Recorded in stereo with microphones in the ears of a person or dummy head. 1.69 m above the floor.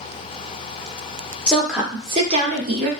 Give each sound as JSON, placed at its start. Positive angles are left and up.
{"t": 1.5, "sound": "a woman speaking", "side_deg": 10, "distance_m": 1.0}